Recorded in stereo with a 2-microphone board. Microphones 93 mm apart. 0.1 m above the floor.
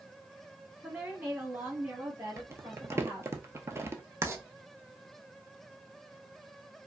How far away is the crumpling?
About 0.5 m.